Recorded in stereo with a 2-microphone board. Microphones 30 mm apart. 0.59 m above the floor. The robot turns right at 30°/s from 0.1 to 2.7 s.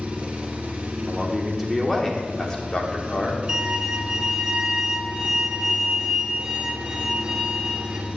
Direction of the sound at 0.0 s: 130° right.